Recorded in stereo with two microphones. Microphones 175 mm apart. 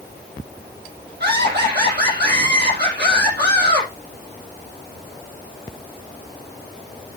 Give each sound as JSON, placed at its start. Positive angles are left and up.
{"t": 1.2, "sound": "laughter", "side_deg": -75, "distance_m": 6.0}